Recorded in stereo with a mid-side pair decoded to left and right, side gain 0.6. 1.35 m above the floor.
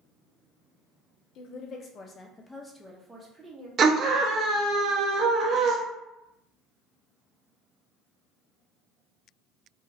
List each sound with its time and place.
1.4 s a woman speaking: 60° left, 0.8 m; by 3.7 s 25° right, 1.0 m
3.8 s a scream: 40° right, 0.7 m